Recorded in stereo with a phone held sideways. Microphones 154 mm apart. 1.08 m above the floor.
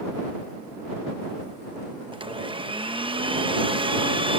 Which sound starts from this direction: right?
A blender, at 2.1 s.